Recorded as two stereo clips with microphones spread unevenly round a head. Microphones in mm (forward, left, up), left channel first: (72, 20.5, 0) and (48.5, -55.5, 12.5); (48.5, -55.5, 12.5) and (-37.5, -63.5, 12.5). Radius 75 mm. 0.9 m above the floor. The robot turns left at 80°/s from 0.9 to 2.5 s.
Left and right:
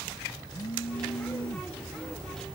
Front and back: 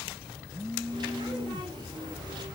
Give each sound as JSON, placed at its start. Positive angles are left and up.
{"t": 0.5, "sound": "a phone buzzing", "azimuth_deg": 105}